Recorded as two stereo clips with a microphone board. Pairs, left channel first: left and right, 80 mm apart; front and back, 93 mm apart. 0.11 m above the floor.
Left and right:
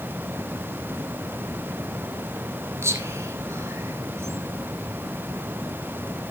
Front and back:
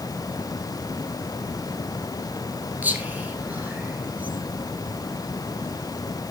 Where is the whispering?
120° right, 2 m.